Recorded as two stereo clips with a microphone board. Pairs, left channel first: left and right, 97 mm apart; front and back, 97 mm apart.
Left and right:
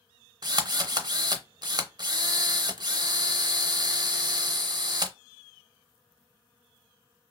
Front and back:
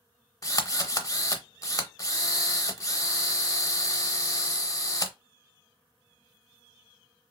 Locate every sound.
0.4 s a drill: 50° right, 0.5 m